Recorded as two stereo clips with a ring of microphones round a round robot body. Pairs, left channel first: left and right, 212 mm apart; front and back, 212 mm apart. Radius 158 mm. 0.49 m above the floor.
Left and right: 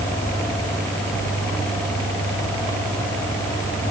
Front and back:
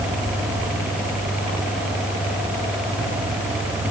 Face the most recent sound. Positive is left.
No sound to turn to.